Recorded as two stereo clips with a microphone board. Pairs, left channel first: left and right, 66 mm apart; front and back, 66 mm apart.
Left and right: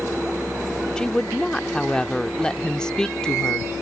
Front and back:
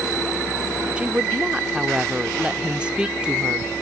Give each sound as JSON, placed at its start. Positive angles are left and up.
{"t": 1.0, "sound": "a woman speaking", "azimuth_deg": 145}